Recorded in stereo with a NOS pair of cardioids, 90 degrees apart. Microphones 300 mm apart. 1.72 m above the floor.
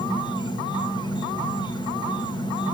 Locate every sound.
0.0 s an insect: 15° left, 1.5 m